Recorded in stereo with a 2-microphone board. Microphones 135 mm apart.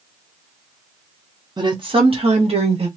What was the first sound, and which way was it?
A woman speaking, 35° right (ahead or behind).